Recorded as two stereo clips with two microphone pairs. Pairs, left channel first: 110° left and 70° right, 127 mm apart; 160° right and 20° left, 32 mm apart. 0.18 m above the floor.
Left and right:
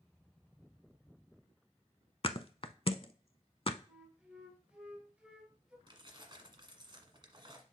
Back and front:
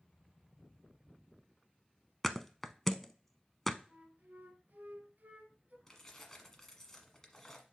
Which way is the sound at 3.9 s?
10° left.